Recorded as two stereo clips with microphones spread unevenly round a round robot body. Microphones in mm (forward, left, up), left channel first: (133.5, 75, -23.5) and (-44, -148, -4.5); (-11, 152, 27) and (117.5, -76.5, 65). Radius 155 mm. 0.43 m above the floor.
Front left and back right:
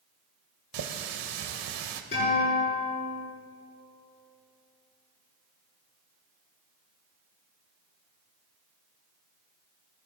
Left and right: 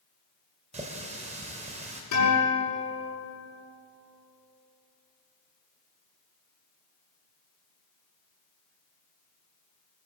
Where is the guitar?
115° left, 6.5 m.